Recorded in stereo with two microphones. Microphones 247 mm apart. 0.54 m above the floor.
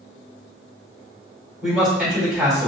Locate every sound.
1.6 s a man speaking: centre (ahead or behind), 1.9 m